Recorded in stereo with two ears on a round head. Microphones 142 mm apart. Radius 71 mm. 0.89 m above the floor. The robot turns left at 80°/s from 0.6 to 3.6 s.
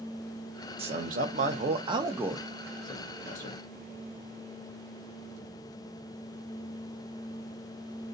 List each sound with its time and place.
0.8 s a man speaking: 50° right, 0.8 m; by 3.6 s 85° left, 0.8 m